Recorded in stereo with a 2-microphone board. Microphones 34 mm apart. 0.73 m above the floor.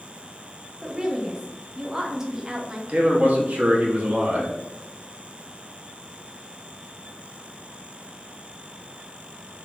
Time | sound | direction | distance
0.8 | a woman speaking | 15° right (ahead or behind) | 0.7 m
2.9 | a man speaking | 45° right (ahead or behind) | 0.9 m